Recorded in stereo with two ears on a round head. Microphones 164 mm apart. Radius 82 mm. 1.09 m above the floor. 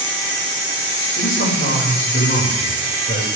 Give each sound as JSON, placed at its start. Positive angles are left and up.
{"t": 1.2, "sound": "a man speaking", "side_deg": 50, "distance_m": 5.5}